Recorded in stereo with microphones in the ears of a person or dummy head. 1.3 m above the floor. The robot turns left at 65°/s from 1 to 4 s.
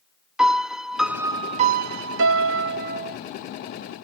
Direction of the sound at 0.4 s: Straight ahead.